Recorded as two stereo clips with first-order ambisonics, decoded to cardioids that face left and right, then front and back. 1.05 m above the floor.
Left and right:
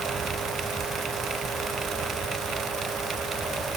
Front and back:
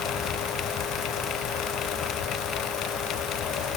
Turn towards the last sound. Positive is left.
No sound to turn to.